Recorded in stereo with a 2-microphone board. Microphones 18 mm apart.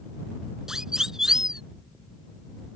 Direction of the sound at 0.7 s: 30° right (ahead or behind).